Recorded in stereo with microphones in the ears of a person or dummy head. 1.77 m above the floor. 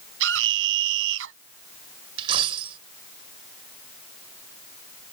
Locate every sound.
0.2 s a scream: 75° right (ahead or behind)
2.2 s a dropped coin: 35° right (ahead or behind)